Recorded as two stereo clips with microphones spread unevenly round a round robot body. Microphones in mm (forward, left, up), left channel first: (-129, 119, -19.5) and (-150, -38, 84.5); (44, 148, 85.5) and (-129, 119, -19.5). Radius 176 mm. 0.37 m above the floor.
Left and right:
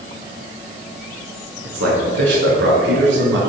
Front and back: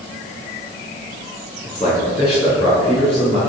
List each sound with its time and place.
1.6 s a man speaking: 65° right, 5 m; by 3.4 s 85° right, 5.5 m